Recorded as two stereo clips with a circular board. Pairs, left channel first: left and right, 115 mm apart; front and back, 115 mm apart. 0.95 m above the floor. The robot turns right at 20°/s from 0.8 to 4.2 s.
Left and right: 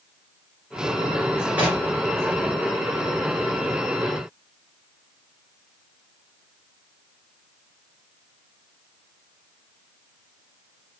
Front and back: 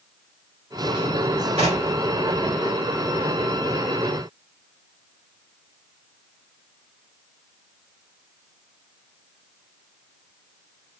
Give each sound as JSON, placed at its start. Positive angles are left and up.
{"t": 1.6, "sound": "knocking", "azimuth_deg": -170, "distance_m": 2.0}